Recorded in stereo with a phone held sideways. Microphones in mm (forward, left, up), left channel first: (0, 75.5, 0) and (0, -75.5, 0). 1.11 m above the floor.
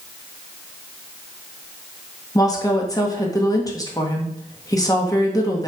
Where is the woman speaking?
25° left (ahead or behind), 1.7 m.